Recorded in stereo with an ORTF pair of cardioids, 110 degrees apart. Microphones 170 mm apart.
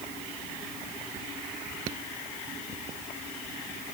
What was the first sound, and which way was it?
Only background noise.